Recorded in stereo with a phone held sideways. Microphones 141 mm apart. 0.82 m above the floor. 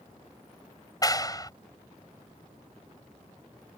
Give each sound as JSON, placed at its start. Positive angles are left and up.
{"t": 1.0, "sound": "a clap", "side_deg": 25}